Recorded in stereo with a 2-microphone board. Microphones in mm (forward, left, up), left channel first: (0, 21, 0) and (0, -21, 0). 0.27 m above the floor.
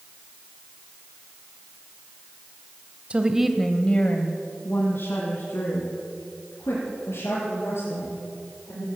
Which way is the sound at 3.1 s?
30° right (ahead or behind).